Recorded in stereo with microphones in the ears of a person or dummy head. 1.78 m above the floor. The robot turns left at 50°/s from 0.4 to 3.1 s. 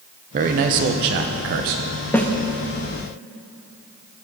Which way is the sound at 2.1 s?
10° left (ahead or behind).